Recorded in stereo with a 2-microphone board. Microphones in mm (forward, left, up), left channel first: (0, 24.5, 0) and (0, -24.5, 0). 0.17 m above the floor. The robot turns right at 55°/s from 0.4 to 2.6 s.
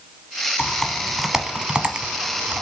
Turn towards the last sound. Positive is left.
turn(degrees=-25)  # may be behind; listen again after turning